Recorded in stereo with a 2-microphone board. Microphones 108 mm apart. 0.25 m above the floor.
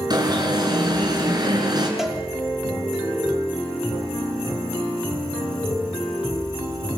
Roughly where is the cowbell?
Centre.